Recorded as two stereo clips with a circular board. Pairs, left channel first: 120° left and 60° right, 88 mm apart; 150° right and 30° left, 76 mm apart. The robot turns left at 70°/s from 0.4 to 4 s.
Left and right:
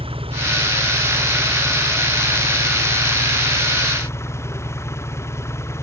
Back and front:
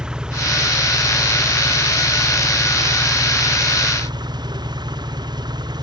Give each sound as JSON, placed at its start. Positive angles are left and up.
{"t": 0.0, "sound": "an engine running", "azimuth_deg": -50}